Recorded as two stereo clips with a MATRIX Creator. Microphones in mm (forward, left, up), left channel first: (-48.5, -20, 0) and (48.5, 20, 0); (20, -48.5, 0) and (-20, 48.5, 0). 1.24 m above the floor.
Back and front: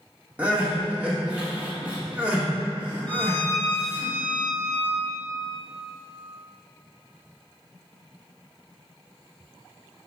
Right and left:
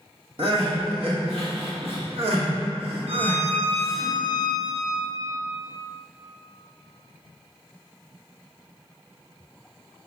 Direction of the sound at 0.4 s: 100° left.